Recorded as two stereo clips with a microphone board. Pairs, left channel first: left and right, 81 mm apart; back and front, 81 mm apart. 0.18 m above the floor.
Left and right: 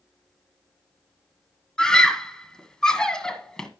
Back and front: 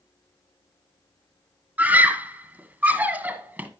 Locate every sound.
1.8 s a scream: 25° left, 1.3 m